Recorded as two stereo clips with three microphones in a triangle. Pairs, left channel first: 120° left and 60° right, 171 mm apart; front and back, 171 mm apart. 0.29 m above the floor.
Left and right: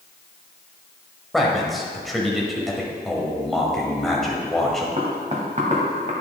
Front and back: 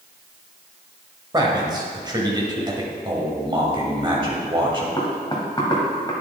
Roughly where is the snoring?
No snoring in this recording.